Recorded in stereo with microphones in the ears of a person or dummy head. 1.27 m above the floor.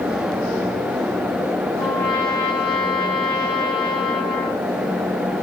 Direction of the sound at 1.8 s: 20° left (ahead or behind).